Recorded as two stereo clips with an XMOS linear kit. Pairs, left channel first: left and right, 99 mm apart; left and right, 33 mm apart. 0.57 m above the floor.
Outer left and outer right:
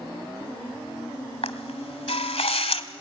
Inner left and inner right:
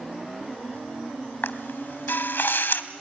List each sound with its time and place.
1.4 s a camera shutter: 80° left, 1.3 m